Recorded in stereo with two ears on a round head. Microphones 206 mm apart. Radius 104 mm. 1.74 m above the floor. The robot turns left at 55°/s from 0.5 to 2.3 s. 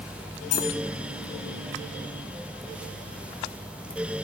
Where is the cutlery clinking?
70° left (ahead or behind), 4.5 m; by 0.7 s 80° left, 4.5 m.